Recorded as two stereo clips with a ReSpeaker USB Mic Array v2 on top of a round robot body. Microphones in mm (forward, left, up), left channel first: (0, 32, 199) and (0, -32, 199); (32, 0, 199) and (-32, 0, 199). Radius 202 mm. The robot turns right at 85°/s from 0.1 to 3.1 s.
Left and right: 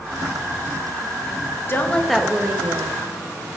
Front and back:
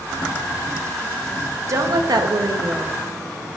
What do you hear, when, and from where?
1.7 s a woman speaking: 145° left, 0.8 m; by 3.0 s 110° right, 0.8 m